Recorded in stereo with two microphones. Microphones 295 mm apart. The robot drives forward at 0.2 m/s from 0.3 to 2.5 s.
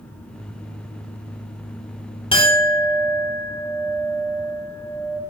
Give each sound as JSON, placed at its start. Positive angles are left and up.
{"t": 2.3, "sound": "a clink", "side_deg": 15, "distance_m": 0.6}